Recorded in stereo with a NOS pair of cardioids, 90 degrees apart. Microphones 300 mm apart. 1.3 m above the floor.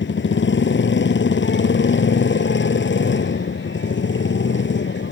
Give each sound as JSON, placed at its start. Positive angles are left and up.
{"t": 0.0, "sound": "a motorcycle", "azimuth_deg": 40}